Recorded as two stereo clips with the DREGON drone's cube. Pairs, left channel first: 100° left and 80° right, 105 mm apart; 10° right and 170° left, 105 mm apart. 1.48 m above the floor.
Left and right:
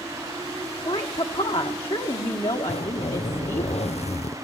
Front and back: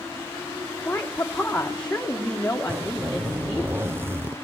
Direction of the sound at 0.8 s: 65° left.